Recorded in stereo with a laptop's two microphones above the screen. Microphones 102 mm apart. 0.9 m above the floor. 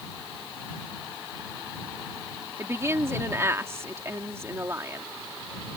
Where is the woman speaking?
25° right (ahead or behind).